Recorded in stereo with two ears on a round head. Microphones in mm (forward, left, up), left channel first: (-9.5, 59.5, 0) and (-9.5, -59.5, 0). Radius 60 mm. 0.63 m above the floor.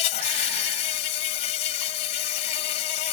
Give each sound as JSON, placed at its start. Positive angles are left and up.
{"t": 0.0, "sound": "an insect", "side_deg": 50}